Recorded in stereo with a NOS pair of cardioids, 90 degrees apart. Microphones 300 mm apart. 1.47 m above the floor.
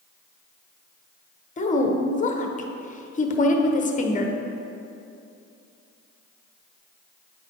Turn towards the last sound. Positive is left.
turn(degrees=25)